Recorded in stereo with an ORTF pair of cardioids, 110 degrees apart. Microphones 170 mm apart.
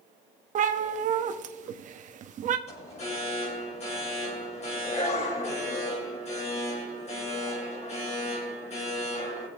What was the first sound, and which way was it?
A cat meowing, 50° right.